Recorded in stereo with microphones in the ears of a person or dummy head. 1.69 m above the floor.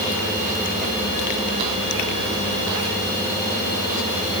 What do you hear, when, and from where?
Only background noise.